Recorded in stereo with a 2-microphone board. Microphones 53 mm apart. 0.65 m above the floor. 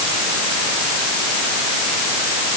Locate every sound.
Only background noise.